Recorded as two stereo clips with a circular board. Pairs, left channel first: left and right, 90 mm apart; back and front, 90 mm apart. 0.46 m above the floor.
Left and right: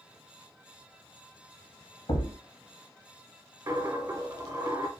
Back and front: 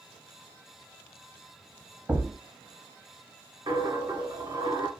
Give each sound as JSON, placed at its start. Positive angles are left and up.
{"t": 2.1, "sound": "a thud", "azimuth_deg": 70, "distance_m": 0.7}
{"t": 3.7, "sound": "a dropped coin", "azimuth_deg": -40, "distance_m": 0.9}